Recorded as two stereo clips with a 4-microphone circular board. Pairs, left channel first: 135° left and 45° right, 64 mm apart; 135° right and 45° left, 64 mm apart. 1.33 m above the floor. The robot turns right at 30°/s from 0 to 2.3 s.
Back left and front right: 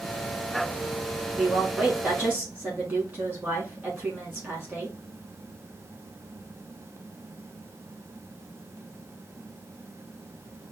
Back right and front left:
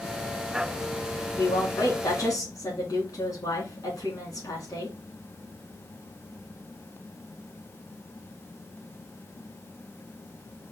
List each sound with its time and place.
1.4 s a woman speaking: 140° right, 3.5 m; by 5.0 s 110° right, 3.5 m